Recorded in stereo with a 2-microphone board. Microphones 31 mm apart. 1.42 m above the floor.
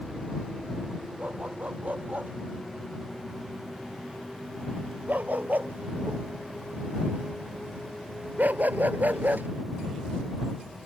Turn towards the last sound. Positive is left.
turn(degrees=-75)  # may be behind; listen again after turning